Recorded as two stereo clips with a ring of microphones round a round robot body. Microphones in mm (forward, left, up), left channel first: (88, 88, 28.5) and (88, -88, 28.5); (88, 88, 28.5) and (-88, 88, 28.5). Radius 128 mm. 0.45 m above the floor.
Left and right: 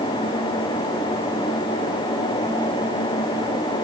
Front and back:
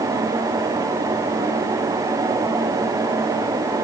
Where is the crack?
No crack in this recording.